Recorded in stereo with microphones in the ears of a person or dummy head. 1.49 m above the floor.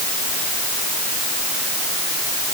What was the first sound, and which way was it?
Only background noise.